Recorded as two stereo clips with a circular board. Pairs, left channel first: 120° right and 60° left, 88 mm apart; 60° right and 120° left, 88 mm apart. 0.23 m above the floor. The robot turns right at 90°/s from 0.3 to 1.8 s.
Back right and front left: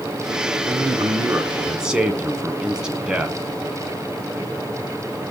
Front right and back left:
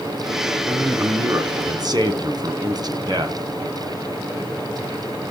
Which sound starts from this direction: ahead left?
A man speaking, at 0.6 s.